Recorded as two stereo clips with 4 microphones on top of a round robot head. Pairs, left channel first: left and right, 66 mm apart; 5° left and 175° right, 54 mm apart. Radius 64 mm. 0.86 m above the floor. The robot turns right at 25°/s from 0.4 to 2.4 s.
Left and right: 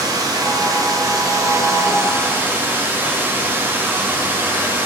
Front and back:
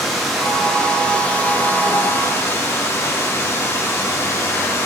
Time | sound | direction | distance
0.0 | running water | 85° right | 1.4 m